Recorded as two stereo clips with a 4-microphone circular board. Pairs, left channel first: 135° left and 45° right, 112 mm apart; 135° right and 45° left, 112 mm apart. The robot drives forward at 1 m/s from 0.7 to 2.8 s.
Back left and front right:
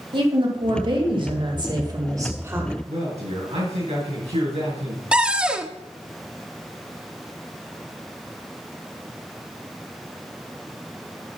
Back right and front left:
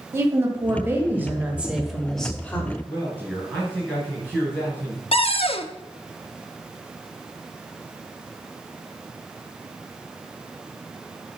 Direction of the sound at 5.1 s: 125° right.